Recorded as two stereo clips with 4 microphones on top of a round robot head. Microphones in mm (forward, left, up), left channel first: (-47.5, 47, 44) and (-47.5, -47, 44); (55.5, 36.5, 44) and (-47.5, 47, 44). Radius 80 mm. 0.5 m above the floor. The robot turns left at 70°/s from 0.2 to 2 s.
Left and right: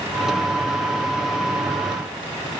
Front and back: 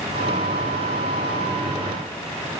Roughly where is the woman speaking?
I don't hear a woman speaking.